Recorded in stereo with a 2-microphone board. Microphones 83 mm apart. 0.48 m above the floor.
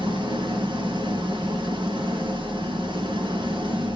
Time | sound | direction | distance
0.0 | an engine running | 75° right (ahead or behind) | 4 m